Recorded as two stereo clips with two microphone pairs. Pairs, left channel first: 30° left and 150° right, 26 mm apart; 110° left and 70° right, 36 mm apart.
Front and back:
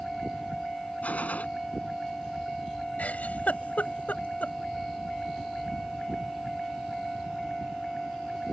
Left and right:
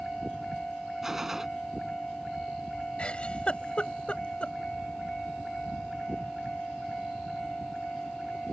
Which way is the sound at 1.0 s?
10° left.